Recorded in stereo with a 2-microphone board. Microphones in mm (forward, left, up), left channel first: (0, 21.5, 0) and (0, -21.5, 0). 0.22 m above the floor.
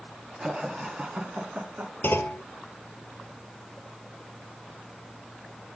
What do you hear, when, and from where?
0.4 s laughter: 15° right (ahead or behind), 2 m; by 1.9 s 45° right (ahead or behind), 2 m
2.0 s a clunk: 65° left (ahead or behind), 0.9 m